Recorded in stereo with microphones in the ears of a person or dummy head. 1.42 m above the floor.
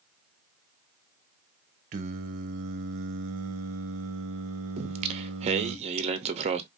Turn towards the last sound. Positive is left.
turn(degrees=-35)  # may be behind; listen again after turning